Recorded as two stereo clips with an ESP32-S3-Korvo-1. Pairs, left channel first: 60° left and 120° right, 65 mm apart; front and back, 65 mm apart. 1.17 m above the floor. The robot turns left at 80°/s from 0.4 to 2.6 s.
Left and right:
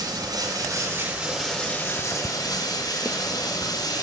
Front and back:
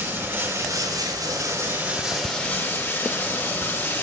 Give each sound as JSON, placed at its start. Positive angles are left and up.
{"t": 0.0, "sound": "running water", "azimuth_deg": -125, "distance_m": 4.0}